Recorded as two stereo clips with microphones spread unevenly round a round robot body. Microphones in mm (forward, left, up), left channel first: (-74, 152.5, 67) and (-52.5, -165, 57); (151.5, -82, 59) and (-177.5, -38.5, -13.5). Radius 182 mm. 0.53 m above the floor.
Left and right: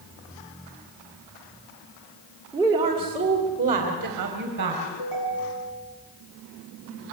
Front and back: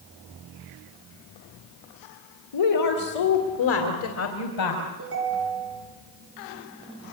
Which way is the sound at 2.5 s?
5° right.